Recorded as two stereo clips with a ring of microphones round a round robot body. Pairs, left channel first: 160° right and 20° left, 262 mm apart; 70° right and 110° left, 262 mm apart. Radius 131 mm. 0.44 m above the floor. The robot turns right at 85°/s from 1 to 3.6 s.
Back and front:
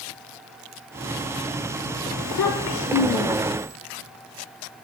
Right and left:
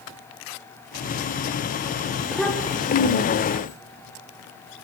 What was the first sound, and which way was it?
A child speaking, 175° right.